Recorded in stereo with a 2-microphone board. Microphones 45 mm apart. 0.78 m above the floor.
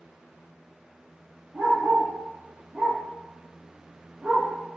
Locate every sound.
1.5 s a dog barking: 35° right (ahead or behind), 6.5 m; by 4.5 s 30° right (ahead or behind), 4.5 m